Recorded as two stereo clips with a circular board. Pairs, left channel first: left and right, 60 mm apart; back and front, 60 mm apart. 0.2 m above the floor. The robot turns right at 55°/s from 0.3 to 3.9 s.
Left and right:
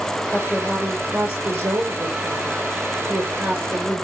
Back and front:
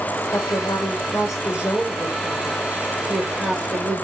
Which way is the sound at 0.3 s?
155° left.